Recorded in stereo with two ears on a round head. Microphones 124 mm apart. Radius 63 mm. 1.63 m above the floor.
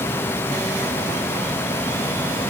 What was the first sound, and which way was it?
Only background noise.